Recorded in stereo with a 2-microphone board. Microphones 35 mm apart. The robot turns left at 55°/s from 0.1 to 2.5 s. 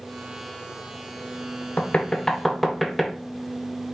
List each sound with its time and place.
1.8 s knocking: 40° left (ahead or behind), 0.6 m; by 3.1 s 5° left (ahead or behind), 0.6 m